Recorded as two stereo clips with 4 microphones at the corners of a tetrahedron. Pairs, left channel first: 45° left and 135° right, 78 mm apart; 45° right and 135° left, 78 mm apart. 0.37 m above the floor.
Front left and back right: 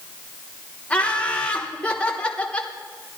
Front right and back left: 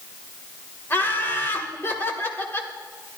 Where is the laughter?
20° right, 1.3 m.